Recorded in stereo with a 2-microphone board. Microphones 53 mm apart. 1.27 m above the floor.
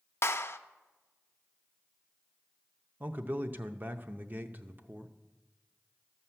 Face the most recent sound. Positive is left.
turn(degrees=-40)  # may be behind; listen again after turning